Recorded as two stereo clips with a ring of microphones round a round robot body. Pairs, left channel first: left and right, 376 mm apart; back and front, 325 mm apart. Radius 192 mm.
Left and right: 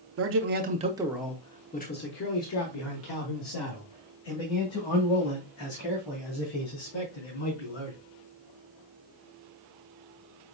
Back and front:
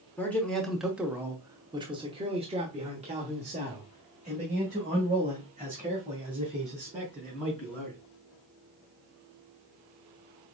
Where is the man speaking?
100° right, 1.0 m; by 8.0 s 70° left, 4 m.